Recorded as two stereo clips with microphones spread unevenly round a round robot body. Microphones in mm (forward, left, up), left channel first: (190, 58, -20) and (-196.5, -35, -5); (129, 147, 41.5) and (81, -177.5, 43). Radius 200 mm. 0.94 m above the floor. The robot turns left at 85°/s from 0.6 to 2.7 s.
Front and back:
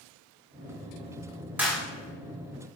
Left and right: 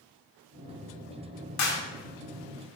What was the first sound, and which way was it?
A clap, 105° left.